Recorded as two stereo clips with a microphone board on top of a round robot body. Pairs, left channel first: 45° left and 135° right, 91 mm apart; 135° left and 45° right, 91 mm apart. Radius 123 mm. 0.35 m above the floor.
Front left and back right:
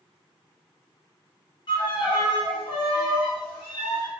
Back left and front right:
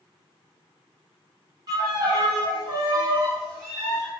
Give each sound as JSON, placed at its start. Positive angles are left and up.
{"t": 1.7, "sound": "a violin", "azimuth_deg": 5, "distance_m": 1.1}